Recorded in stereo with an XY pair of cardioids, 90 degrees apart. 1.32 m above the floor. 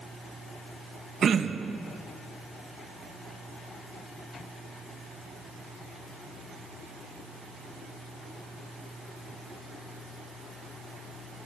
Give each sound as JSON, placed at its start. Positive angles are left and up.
{"t": 1.2, "sound": "throat clearing", "azimuth_deg": -55, "distance_m": 1.2}